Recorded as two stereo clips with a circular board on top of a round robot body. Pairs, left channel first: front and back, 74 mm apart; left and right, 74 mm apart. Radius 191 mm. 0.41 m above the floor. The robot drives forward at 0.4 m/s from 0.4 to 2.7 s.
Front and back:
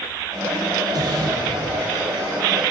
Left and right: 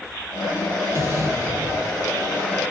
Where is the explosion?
145° right, 5 m; by 2.1 s 150° right, 5.5 m.